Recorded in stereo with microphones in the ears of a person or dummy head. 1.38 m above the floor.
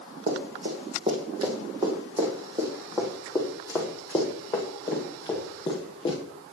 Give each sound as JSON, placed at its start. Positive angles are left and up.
{"t": 0.3, "sound": "running footsteps", "side_deg": -40, "distance_m": 4.0}